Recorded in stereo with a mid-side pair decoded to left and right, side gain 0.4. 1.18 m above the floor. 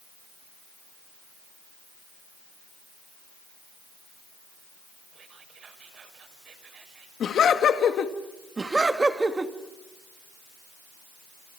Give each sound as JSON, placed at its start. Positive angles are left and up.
{"t": 5.1, "sound": "whispering", "azimuth_deg": -65, "distance_m": 6.0}
{"t": 7.2, "sound": "laughter", "azimuth_deg": 65, "distance_m": 2.0}
{"t": 8.6, "sound": "laughter", "azimuth_deg": -25, "distance_m": 2.5}